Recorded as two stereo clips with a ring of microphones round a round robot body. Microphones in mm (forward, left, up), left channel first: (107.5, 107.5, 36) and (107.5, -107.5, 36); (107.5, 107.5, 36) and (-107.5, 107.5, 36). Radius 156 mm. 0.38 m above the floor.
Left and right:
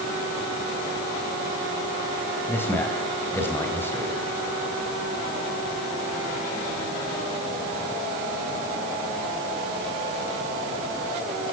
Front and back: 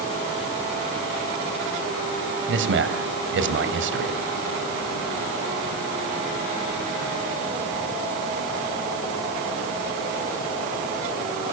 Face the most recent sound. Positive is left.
turn(degrees=170)